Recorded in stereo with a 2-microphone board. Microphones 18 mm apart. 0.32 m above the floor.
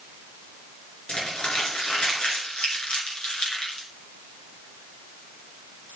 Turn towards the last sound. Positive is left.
turn(degrees=80)